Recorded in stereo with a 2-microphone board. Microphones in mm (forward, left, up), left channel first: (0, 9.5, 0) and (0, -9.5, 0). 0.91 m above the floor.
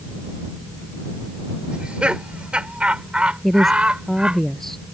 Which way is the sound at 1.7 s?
75° right (ahead or behind).